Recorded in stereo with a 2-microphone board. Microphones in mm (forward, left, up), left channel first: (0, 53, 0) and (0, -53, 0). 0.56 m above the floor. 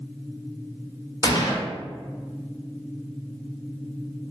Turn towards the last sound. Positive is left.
turn(degrees=35)  # may be behind; listen again after turning